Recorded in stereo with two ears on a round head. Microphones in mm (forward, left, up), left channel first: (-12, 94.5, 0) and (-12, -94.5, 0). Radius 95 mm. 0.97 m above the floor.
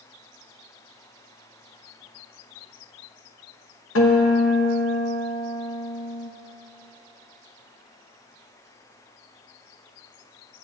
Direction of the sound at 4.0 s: 65° left (ahead or behind).